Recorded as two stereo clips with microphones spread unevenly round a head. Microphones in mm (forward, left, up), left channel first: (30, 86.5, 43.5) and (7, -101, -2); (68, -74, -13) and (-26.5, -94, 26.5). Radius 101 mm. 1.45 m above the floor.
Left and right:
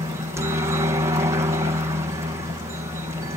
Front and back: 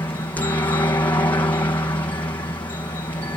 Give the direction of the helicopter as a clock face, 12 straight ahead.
1 o'clock.